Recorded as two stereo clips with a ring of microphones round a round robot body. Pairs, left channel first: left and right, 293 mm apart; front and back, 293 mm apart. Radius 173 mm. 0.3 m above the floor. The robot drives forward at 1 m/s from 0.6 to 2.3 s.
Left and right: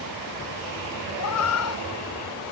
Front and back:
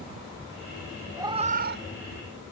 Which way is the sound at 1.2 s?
100° left.